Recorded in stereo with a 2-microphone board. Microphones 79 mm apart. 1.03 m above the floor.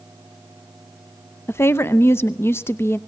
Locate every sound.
1.5 s a woman speaking: 30° left (ahead or behind), 0.6 m